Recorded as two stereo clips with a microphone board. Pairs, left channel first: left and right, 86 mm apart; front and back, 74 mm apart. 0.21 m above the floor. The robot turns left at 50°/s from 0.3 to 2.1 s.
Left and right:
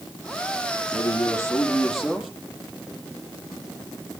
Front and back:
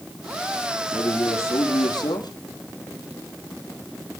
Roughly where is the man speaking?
Ahead left.